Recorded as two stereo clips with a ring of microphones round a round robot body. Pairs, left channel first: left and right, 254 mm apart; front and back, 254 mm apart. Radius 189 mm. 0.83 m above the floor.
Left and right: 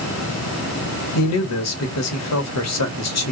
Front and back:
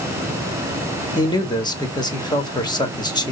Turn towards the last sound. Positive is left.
turn(degrees=75)